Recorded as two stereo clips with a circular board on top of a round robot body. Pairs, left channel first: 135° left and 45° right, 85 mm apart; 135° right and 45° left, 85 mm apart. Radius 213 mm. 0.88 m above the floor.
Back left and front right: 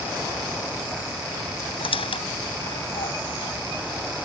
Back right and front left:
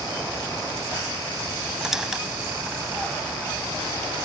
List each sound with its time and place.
1.8 s a squeak: 130° left